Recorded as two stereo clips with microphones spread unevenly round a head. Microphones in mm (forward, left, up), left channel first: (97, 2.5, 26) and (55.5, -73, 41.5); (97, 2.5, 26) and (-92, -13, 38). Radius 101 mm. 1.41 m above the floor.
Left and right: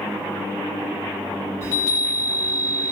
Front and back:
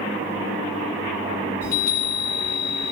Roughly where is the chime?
Ahead.